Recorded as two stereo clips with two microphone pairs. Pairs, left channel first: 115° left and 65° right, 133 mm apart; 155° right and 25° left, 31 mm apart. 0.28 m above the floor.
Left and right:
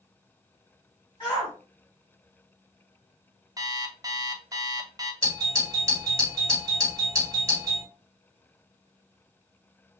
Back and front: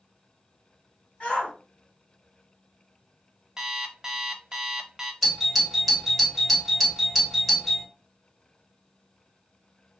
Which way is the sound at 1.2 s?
165° left.